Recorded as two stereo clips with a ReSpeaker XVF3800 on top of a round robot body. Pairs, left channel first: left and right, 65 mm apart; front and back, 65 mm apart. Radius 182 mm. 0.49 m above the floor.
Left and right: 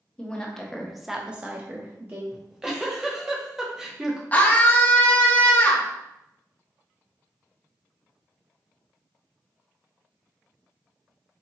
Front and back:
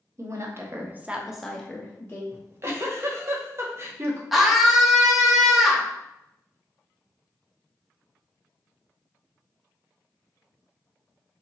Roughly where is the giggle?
Behind.